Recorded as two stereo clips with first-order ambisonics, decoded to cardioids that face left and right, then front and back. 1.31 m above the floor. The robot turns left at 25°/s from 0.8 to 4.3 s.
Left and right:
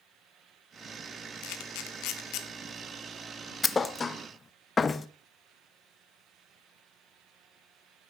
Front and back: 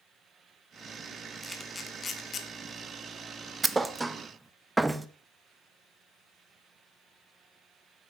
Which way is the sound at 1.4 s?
85° left.